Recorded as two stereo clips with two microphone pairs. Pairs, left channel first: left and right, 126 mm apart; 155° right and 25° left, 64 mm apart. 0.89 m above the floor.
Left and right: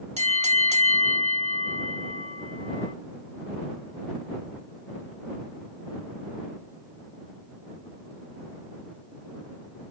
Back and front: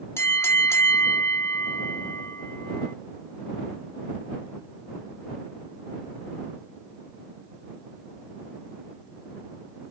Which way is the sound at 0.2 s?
115° right.